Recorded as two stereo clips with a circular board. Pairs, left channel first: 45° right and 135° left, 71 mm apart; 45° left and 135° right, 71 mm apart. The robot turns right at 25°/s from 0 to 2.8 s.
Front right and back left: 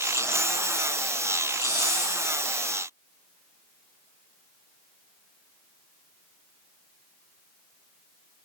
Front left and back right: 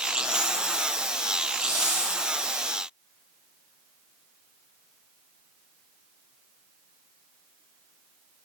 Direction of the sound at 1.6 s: 70° right.